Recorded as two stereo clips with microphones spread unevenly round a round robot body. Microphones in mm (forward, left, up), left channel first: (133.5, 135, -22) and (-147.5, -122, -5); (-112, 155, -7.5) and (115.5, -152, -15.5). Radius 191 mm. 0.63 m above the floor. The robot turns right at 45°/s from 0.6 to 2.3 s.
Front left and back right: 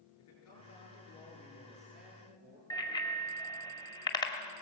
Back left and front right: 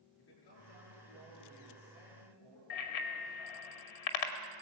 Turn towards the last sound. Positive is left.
turn(degrees=120)